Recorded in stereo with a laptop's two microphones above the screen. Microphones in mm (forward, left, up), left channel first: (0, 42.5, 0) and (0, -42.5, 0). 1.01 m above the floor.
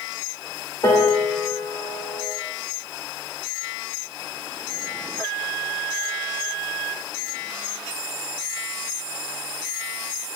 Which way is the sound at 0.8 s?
50° left (ahead or behind).